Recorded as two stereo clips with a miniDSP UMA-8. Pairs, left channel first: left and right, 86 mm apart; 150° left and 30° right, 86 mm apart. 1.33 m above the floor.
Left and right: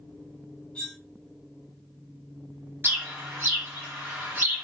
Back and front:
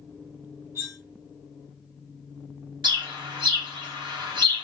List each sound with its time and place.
0.8 s cutlery clinking: 15° left, 0.7 m
2.8 s a bird: 30° right, 0.9 m